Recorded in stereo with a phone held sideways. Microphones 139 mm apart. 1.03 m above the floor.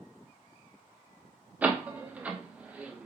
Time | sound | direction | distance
1.6 | a door slam | 10° right (ahead or behind) | 0.6 m